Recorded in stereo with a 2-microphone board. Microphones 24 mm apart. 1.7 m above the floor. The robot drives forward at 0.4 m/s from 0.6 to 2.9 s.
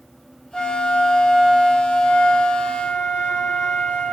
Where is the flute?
45° left (ahead or behind), 1.3 m; by 4.1 s 75° left (ahead or behind), 0.9 m.